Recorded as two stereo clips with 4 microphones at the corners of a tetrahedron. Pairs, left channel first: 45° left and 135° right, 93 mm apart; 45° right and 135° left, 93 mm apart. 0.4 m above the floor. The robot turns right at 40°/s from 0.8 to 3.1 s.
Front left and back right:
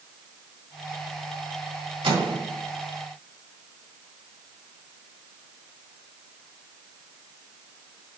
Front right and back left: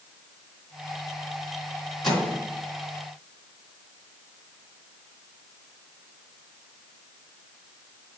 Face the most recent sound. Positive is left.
turn(degrees=-90)